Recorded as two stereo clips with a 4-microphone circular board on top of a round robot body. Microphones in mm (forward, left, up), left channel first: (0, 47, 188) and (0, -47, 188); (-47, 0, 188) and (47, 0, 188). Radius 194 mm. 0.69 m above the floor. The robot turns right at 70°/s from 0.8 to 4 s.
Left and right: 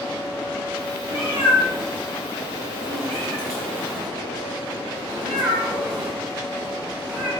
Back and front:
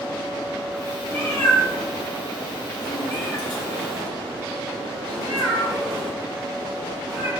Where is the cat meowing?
100° left, 1.3 m; by 7.3 s 55° right, 1.3 m.